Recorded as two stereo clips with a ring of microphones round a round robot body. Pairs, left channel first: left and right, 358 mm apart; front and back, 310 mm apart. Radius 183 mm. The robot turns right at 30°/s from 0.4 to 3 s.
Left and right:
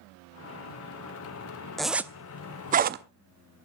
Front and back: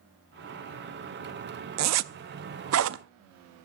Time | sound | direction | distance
1.8 | a zipper | straight behind | 0.6 m